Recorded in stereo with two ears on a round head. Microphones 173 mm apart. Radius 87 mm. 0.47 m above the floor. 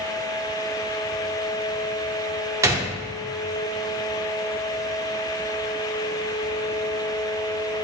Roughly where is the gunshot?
Centre.